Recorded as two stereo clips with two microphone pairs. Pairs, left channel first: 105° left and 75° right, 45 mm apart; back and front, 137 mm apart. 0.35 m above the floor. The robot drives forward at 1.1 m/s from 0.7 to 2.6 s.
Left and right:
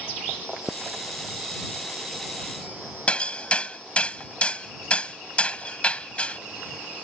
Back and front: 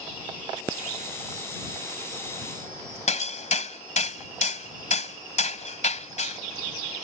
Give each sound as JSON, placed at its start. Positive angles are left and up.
{"t": 3.1, "sound": "hammering", "azimuth_deg": 165}